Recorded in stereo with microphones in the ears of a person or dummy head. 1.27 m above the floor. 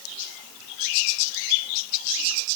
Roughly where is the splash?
I don't hear a splash.